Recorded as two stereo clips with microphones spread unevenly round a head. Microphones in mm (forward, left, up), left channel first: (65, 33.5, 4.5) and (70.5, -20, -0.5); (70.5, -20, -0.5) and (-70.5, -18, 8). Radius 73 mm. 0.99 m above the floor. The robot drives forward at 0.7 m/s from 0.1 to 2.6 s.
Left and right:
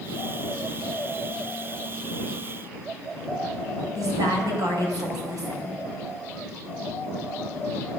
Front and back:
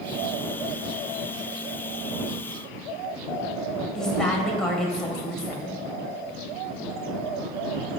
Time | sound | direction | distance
4.0 | a woman speaking | 90° right | 4 m